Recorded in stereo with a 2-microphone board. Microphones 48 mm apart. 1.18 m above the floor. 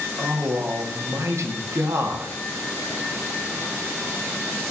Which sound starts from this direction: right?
A man speaking, at 0.2 s.